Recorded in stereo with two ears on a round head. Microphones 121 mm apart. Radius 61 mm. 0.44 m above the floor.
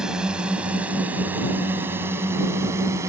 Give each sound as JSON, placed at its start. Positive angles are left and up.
{"t": 0.0, "sound": "a drone", "side_deg": -5}